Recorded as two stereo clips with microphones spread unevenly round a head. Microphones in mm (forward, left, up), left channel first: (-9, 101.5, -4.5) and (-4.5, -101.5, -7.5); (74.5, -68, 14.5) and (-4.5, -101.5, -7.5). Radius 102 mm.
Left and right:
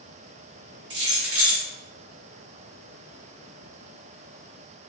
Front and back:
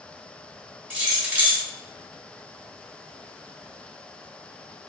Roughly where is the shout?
No shout in this recording.